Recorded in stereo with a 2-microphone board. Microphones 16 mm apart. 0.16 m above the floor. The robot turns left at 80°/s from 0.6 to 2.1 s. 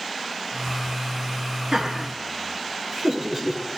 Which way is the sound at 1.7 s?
40° right (ahead or behind).